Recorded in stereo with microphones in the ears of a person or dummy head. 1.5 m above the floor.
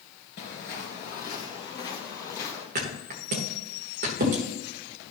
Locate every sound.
0.4 s footsteps: 35° left (ahead or behind), 1.7 m; by 2.6 s 15° left (ahead or behind), 3.5 m
2.8 s a thud: 40° right (ahead or behind), 1.4 m